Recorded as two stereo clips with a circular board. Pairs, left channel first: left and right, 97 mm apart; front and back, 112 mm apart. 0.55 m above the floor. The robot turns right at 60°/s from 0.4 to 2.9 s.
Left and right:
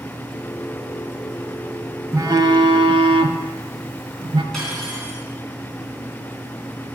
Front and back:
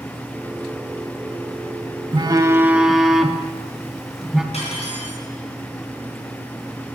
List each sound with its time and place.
2.1 s a phone buzzing: 140° right, 0.6 m; by 4.4 s 95° right, 0.6 m
4.5 s cutlery clinking: 5° left, 3.5 m